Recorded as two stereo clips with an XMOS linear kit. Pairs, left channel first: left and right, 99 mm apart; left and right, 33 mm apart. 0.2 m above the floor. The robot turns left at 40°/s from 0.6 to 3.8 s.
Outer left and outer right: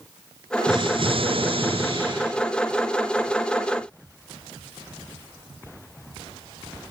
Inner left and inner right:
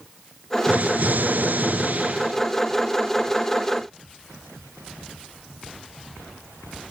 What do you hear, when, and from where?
0.7 s an explosion: 60° right, 3 m; by 2.4 s 125° right, 3 m